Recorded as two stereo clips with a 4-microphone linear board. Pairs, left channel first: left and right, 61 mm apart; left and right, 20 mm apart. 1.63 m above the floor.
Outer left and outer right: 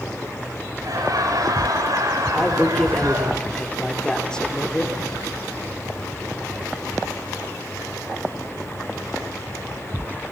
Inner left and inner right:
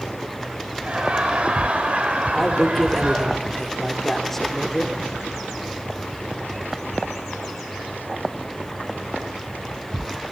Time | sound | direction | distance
0.8 | laughter | 80° right | 8 m
2.3 | a man speaking | 15° left (ahead or behind) | 4 m